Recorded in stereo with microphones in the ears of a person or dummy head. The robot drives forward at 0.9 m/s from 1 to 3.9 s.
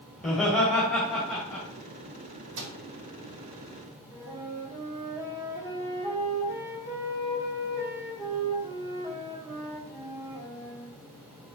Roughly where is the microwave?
Right.